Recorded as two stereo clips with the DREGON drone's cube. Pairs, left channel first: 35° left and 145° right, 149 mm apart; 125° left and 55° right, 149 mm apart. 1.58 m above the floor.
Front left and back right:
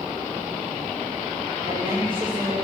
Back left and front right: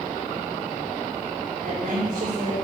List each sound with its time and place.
1.6 s a woman speaking: 85° right, 7 m